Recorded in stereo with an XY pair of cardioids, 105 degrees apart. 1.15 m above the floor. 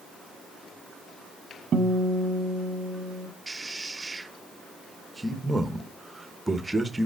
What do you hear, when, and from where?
1.7 s a guitar: 45° right, 1.0 m
3.5 s a man speaking: 15° right, 1.1 m